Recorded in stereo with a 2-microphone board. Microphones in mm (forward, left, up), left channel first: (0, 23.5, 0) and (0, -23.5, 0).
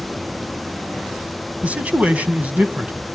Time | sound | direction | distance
1.6 | a man speaking | 30° right (ahead or behind) | 1.7 m